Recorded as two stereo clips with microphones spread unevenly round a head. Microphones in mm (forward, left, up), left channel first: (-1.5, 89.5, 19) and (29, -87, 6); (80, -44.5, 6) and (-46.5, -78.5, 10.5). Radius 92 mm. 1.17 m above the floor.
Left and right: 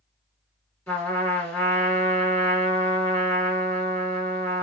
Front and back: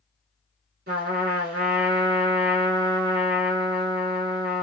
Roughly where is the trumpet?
Behind.